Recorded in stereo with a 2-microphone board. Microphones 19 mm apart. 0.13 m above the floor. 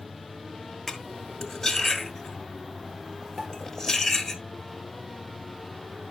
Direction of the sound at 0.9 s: 10° left (ahead or behind).